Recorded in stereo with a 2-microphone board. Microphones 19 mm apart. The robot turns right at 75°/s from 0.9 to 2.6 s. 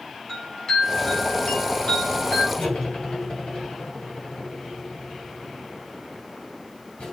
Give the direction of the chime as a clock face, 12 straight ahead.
11 o'clock.